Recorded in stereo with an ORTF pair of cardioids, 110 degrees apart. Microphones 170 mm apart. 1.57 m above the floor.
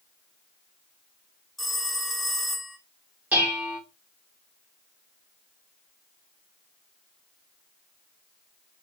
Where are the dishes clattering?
10° right, 3.5 m.